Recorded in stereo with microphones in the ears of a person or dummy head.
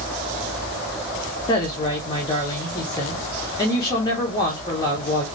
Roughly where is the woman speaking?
Left.